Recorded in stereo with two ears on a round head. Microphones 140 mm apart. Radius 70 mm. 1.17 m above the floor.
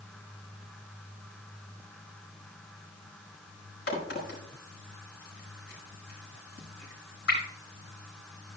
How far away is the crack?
About 5 m.